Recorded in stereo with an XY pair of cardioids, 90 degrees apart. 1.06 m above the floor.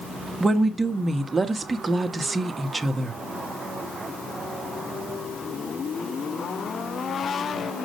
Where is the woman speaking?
30° right, 1.4 m.